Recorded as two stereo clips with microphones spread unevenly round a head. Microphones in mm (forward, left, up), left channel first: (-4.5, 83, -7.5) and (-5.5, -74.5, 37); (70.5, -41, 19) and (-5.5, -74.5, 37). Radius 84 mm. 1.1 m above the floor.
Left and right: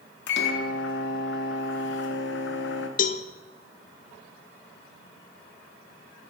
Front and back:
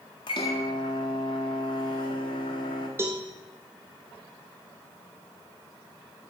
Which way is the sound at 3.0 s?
130° left.